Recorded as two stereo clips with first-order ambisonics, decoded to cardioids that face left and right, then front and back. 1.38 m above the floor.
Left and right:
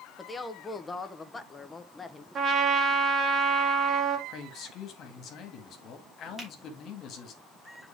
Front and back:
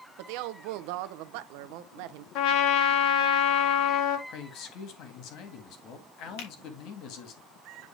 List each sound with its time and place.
0.2 s a woman speaking: 170° left, 0.8 m
2.4 s a trumpet: 25° right, 1.3 m
4.3 s a man speaking: 35° left, 2 m
6.4 s a finger snap: 5° right, 3 m